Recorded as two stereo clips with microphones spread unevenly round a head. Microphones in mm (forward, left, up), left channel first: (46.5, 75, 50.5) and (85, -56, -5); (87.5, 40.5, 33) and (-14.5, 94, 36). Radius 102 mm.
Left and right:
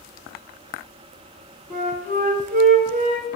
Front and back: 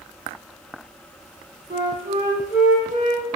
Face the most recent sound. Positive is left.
turn(degrees=-135)